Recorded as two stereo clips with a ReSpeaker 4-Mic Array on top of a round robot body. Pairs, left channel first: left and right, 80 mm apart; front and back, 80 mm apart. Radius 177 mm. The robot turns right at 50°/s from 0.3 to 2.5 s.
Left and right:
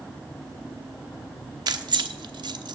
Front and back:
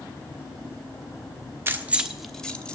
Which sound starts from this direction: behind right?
Keys jangling, at 1.7 s.